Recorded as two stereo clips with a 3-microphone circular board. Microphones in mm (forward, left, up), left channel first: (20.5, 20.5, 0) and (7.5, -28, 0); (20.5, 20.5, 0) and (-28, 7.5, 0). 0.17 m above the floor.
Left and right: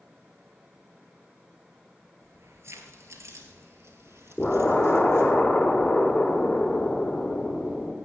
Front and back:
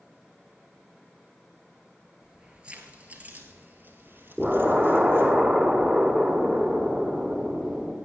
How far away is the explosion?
About 1.4 m.